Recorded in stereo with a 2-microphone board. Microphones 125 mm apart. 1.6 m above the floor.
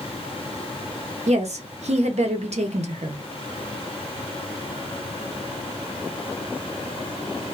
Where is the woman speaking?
65° right (ahead or behind), 0.7 m.